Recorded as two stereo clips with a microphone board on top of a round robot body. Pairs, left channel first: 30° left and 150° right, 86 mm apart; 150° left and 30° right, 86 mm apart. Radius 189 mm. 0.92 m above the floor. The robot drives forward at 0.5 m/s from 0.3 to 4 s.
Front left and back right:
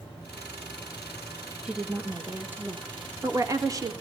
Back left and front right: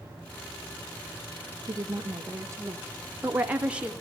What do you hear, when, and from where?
1.6 s a woman speaking: 70° right, 1.9 m; by 3.9 s 110° right, 1.9 m